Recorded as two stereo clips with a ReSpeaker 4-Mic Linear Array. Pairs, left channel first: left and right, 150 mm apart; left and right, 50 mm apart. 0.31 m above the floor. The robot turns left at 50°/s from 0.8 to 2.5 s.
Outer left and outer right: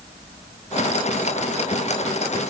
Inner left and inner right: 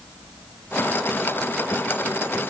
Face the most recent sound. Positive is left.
No sound to turn to.